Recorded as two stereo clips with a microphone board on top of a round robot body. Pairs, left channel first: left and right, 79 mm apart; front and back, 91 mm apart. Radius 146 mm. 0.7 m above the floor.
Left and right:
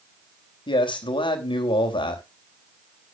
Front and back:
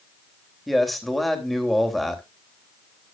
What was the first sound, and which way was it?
A man speaking, 90° left.